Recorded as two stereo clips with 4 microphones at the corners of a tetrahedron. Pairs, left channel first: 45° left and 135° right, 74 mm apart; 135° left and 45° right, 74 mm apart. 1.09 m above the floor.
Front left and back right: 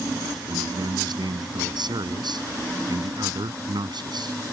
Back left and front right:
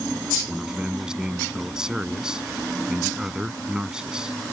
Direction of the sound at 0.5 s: 125° right.